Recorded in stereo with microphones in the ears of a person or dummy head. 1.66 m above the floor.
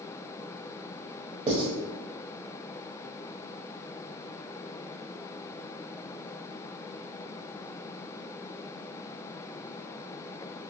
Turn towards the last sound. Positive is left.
turn(degrees=-35)  # may be behind; listen again after turning